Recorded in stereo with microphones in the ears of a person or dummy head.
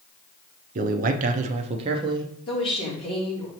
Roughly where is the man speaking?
Right.